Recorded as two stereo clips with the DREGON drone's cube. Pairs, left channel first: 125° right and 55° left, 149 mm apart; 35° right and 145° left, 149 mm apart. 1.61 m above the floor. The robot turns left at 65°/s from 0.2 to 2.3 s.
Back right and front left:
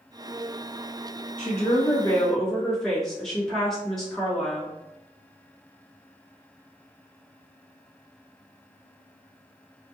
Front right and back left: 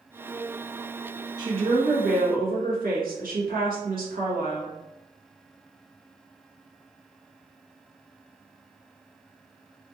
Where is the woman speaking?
155° right, 1.0 m; by 4.8 s 150° left, 1.0 m.